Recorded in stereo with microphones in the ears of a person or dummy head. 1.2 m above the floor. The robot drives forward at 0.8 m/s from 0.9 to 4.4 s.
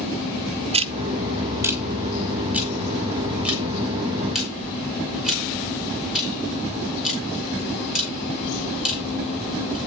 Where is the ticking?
30° right (ahead or behind), 0.5 m; by 9.8 s 5° right (ahead or behind), 3 m.